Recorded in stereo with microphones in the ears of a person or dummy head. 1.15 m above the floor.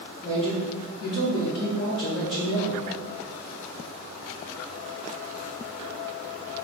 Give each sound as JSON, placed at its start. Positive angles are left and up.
{"t": 0.2, "sound": "a man speaking", "side_deg": 20, "distance_m": 1.5}